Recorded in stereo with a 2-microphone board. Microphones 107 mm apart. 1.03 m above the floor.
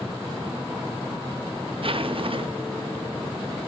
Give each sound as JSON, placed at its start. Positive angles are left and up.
{"t": 1.8, "sound": "a zipper", "side_deg": -55, "distance_m": 0.7}